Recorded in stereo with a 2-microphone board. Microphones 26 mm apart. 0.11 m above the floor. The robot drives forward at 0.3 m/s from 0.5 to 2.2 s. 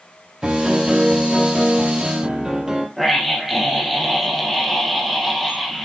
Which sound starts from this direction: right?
A piano, at 0.4 s.